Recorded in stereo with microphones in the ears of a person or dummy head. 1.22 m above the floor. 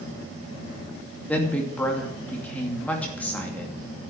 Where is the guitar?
No guitar in this recording.